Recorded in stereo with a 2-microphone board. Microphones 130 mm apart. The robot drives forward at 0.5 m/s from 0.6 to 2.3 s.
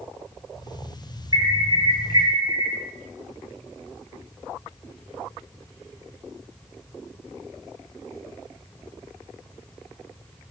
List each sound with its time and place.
1.3 s an alarm: 30° right (ahead or behind), 4.5 m